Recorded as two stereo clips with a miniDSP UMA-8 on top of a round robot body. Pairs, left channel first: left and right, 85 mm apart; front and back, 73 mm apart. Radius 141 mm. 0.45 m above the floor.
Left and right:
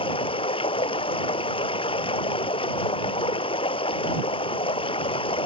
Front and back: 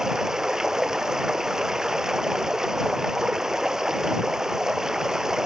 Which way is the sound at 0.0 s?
95° left.